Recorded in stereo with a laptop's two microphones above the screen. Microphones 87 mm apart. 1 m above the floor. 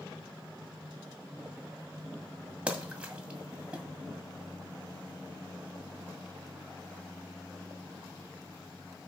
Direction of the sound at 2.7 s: 15° right (ahead or behind).